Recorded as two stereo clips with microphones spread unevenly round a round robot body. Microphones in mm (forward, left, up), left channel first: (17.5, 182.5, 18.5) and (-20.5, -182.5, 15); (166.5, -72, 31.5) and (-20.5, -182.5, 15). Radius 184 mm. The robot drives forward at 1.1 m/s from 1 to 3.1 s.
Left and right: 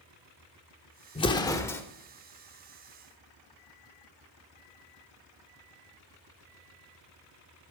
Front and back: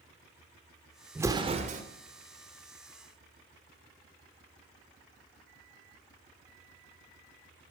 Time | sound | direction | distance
1.1 | an explosion | 145° left | 0.9 m